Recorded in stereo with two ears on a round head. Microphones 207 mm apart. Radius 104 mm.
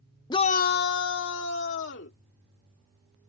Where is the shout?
15° left (ahead or behind); by 2.2 s 50° left (ahead or behind).